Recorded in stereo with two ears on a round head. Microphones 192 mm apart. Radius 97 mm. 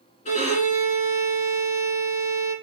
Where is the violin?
35° left (ahead or behind), 1.8 m.